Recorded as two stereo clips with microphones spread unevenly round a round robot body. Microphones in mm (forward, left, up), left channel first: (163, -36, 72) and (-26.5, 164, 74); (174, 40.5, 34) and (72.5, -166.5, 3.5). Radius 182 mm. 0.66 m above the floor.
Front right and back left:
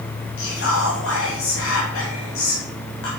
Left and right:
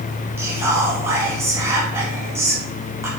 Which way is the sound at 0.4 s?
45° right.